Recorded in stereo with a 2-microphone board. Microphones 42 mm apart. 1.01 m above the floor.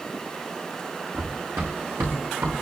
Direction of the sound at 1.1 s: 75° right (ahead or behind).